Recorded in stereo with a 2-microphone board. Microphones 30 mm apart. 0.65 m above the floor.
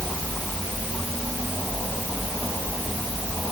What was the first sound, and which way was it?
Only background noise.